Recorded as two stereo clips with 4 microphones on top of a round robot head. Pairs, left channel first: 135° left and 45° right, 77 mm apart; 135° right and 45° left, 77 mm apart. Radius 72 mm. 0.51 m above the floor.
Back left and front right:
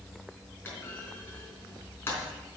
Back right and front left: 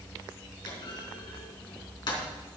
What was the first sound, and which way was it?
A clunk, 165° right.